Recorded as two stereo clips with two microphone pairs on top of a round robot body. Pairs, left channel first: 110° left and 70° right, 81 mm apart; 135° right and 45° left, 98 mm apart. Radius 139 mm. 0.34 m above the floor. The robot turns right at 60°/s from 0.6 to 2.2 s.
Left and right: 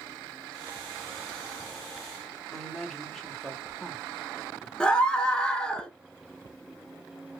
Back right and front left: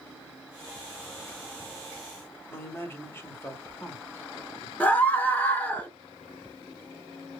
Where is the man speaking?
175° right, 1.1 m.